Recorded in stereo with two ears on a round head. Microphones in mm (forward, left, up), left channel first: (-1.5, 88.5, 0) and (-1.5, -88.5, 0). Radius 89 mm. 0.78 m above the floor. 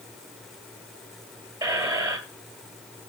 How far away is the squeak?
About 2 m.